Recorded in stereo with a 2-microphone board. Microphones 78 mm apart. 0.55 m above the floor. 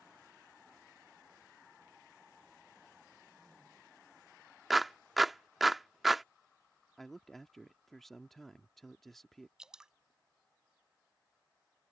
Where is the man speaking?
5° left (ahead or behind).